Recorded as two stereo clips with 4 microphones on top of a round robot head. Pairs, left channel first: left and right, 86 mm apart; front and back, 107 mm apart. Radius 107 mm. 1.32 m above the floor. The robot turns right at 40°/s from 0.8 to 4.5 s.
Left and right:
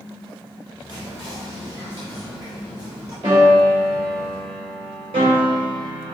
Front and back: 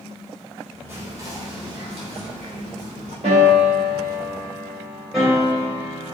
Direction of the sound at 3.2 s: 145° right.